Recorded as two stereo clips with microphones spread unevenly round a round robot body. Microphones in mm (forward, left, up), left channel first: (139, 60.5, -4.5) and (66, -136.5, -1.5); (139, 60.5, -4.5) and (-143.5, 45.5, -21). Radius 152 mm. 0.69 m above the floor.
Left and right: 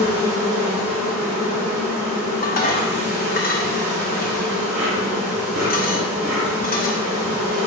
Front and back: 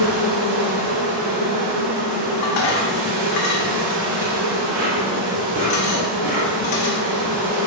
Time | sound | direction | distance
0.0 | an insect | 125° right | 1.1 m
2.4 | dishes clattering | 25° left | 0.6 m